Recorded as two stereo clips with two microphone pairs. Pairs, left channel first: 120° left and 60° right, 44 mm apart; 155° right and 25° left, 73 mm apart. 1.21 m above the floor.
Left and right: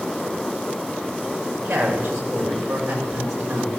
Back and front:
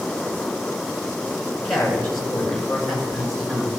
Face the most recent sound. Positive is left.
turn(degrees=-60)